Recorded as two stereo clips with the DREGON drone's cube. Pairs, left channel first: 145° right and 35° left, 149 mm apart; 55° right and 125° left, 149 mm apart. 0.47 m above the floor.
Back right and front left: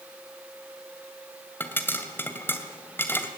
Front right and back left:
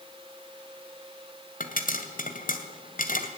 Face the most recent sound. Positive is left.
turn(degrees=-70)